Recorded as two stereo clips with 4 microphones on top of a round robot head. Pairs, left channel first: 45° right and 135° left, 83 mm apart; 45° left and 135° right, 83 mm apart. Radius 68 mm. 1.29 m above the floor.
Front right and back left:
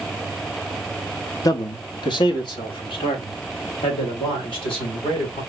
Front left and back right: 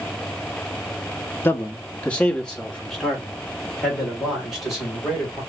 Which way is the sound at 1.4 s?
15° right.